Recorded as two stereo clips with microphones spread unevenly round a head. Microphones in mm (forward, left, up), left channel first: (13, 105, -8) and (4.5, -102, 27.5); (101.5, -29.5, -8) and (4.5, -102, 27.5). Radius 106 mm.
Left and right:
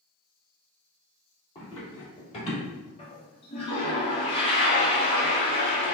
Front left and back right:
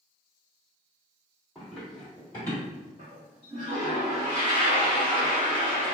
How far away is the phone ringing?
I don't hear a phone ringing.